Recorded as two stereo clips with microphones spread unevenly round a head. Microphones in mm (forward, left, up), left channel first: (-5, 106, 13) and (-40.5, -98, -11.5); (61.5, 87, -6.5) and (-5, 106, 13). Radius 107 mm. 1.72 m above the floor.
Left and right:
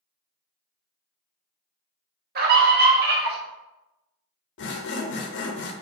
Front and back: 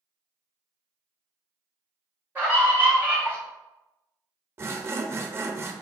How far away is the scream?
About 0.8 m.